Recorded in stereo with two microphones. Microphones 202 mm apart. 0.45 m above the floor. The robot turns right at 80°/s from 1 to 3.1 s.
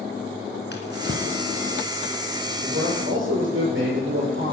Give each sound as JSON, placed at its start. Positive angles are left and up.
{"t": 0.7, "sound": "a drawer", "side_deg": 60, "distance_m": 3.0}
{"t": 2.6, "sound": "a man speaking", "azimuth_deg": -135, "distance_m": 8.0}